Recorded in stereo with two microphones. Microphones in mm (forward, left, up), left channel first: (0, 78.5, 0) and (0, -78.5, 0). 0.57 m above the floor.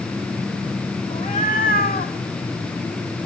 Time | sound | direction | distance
1.1 | a cat meowing | 50° left (ahead or behind) | 2 m